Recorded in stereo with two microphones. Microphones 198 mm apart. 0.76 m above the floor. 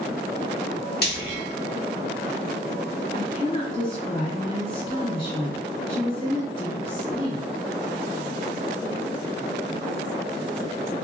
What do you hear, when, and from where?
1.0 s frying: 55° left (ahead or behind), 0.7 m
3.1 s a woman speaking: 25° left (ahead or behind), 1.3 m